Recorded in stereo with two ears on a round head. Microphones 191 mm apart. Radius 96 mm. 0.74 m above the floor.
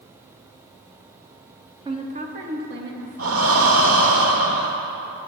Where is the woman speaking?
20° right (ahead or behind), 1.0 m; by 4.2 s 70° right (ahead or behind), 3 m.